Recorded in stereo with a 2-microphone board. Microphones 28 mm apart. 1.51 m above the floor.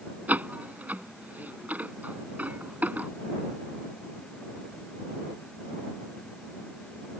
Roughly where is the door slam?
Right.